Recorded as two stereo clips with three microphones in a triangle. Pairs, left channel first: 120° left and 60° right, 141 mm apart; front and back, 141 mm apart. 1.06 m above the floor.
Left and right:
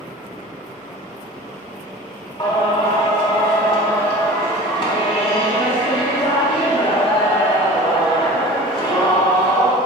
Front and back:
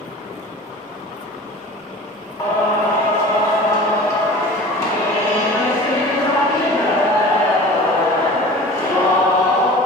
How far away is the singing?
About 2 m.